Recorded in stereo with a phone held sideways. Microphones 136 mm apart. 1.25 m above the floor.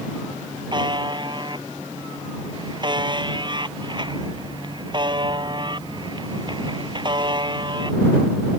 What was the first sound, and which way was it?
A buzzer, 35° right (ahead or behind).